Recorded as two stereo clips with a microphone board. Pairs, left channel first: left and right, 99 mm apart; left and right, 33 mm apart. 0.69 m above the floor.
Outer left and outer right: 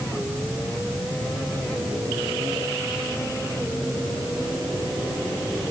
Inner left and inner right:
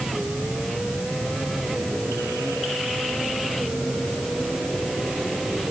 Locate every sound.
Only background noise.